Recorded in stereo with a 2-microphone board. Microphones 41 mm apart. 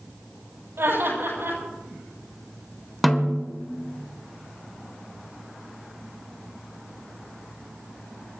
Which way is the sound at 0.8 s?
80° right.